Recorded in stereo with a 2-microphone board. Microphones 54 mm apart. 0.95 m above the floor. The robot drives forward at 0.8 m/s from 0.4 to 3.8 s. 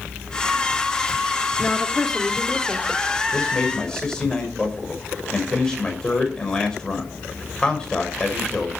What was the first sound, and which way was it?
A woman speaking, 10° left (ahead or behind).